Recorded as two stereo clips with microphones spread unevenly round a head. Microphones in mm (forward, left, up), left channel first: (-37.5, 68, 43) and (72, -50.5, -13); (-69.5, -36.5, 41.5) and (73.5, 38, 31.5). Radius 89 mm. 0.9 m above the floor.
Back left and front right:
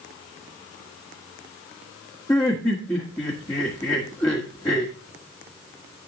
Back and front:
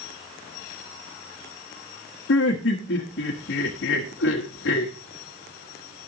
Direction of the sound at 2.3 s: 150° right.